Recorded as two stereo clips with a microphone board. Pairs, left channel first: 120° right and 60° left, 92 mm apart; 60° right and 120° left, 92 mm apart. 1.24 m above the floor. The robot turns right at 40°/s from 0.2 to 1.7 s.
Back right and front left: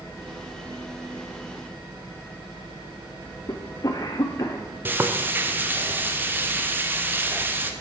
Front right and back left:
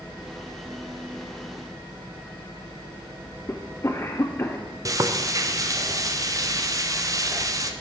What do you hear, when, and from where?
3.5 s a cough: 105° right, 0.5 m
4.8 s frying: 115° left, 0.6 m